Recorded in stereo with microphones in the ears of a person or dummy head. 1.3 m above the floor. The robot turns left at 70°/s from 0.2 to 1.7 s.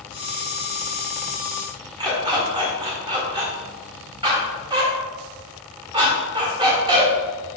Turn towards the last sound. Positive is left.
turn(degrees=-25)  # may be behind; listen again after turning